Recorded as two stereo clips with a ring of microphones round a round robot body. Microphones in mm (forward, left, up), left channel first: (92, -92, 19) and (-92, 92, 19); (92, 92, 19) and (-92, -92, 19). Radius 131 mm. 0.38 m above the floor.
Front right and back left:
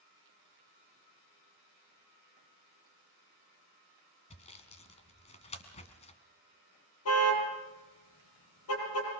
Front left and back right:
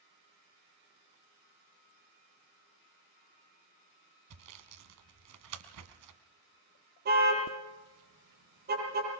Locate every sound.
4.3 s sawing: 110° right, 1.8 m
7.0 s a car horn: 80° right, 6.5 m